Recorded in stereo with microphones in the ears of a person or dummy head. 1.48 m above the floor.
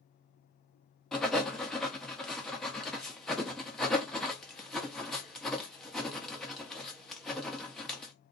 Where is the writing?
Centre (ahead or behind), 0.7 m.